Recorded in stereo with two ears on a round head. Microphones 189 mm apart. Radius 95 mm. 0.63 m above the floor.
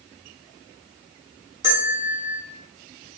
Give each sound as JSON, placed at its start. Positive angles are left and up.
{"t": 1.6, "sound": "a bell", "side_deg": -15, "distance_m": 1.1}